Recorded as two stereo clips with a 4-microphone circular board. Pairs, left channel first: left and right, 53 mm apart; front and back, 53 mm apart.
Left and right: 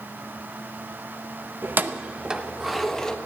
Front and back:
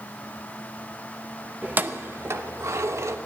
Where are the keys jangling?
125° right, 0.8 m; by 3.2 s 165° left, 1.0 m.